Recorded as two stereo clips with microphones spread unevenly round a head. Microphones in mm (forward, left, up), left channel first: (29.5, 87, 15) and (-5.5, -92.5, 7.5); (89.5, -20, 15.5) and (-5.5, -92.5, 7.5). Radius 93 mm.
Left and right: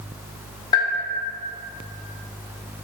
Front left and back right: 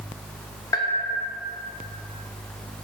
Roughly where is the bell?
Ahead left.